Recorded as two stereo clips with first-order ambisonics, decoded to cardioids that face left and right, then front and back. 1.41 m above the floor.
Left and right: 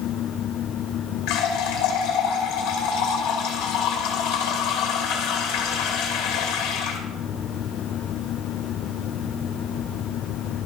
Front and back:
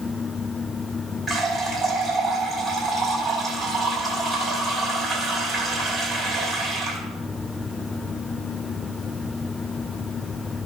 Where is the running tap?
85° left, 2.5 m.